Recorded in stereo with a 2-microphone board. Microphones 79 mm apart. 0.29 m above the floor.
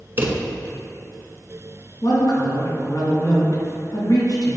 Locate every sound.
0.2 s a drawer: 30° right (ahead or behind), 1.0 m
2.0 s a woman speaking: 60° left (ahead or behind), 2.5 m